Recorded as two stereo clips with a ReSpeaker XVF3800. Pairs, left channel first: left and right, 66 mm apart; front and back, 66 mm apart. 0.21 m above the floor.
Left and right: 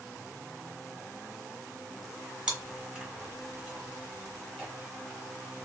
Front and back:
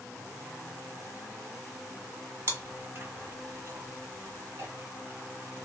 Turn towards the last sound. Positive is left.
turn(degrees=-165)